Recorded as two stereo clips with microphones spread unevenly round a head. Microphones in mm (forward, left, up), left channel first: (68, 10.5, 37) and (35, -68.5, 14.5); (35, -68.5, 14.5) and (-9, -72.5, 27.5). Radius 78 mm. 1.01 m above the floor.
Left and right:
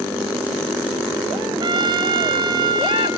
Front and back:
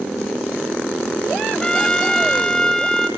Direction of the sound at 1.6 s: 75° right.